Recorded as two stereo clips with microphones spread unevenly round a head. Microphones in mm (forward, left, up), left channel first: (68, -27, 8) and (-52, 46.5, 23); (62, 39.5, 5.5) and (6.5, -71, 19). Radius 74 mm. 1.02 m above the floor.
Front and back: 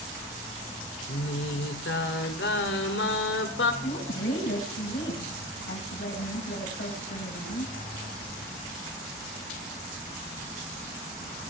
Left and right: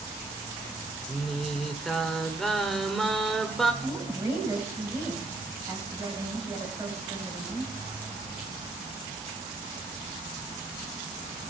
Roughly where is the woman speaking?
Ahead right.